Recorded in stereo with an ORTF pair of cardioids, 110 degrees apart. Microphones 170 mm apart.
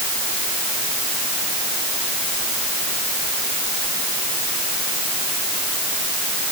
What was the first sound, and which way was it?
Only background noise.